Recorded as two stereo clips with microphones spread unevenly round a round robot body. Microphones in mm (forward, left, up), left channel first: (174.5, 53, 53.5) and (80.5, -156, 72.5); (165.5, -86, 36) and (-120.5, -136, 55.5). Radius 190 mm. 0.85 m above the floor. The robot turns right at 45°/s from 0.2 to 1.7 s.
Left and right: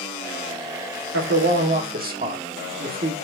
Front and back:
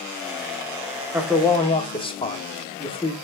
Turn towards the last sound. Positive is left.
turn(degrees=-60)